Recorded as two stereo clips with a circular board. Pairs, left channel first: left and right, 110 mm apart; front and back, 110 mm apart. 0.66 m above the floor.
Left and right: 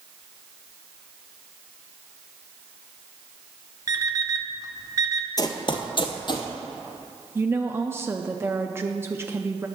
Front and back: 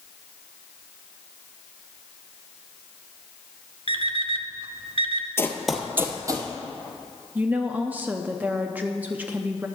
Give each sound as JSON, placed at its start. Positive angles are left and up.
{"t": 3.9, "sound": "an alarm clock", "azimuth_deg": -145, "distance_m": 0.7}
{"t": 5.4, "sound": "running footsteps", "azimuth_deg": 55, "distance_m": 0.8}
{"t": 7.3, "sound": "a woman speaking", "azimuth_deg": -125, "distance_m": 0.5}